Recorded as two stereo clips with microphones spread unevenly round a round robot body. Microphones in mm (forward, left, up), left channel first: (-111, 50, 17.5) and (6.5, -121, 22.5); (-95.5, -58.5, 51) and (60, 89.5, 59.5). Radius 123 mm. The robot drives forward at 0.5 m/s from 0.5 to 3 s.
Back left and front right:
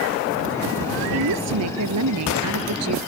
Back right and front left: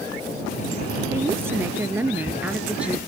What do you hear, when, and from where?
1.1 s a woman speaking: 35° right; by 3.0 s 40° right